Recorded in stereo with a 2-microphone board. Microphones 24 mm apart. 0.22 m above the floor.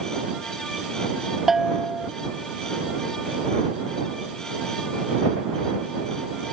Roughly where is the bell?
Centre.